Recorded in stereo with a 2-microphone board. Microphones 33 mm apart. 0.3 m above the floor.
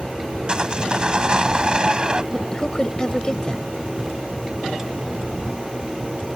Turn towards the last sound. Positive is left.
turn(degrees=25)  # may be behind; listen again after turning